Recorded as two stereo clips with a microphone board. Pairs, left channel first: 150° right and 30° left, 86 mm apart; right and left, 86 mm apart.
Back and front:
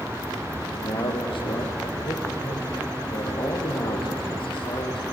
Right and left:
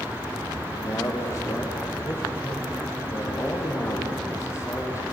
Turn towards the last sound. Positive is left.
turn(degrees=-145)